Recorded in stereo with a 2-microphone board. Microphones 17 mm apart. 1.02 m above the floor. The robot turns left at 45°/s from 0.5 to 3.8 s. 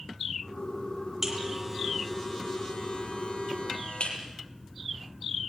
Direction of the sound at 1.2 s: 15° right (ahead or behind).